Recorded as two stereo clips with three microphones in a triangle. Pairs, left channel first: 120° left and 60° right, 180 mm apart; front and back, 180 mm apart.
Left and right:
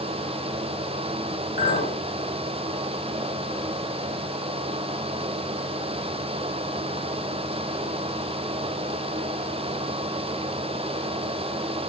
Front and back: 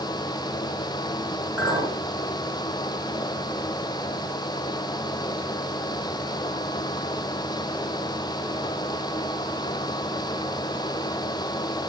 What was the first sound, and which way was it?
A clink, 100° left.